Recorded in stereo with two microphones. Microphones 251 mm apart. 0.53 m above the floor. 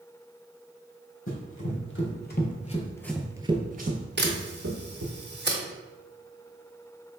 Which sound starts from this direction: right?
A camera shutter, at 4.2 s.